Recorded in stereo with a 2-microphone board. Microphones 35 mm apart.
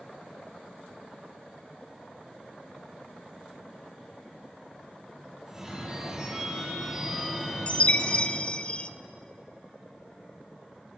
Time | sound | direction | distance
5.5 | a phone ringing | 15° right (ahead or behind) | 3.5 m
7.7 | a chime | 30° left (ahead or behind) | 0.5 m